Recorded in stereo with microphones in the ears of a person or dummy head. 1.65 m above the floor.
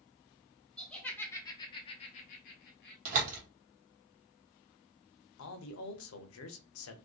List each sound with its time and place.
0.8 s laughter: centre (ahead or behind), 1.0 m; by 3.0 s 50° left (ahead or behind), 0.8 m
3.0 s a door slam: 50° right (ahead or behind), 0.9 m
5.4 s a man speaking: 70° left (ahead or behind), 0.6 m